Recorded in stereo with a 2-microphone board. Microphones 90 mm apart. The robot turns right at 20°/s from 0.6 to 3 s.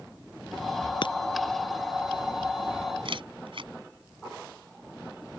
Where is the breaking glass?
55° left (ahead or behind); by 1.1 s 60° left (ahead or behind).